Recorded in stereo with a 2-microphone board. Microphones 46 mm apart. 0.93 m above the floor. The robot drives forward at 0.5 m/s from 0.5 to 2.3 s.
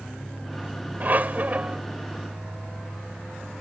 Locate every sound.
1.0 s a squeak: 45° right (ahead or behind); by 1.8 s 40° right (ahead or behind)